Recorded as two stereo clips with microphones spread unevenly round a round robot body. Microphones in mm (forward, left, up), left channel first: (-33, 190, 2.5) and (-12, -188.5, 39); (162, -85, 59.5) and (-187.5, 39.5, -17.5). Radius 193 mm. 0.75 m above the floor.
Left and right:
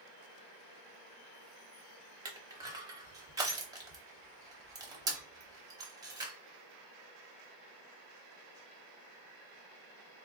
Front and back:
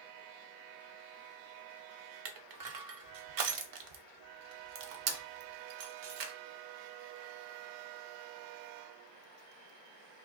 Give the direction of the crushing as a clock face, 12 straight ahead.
5 o'clock.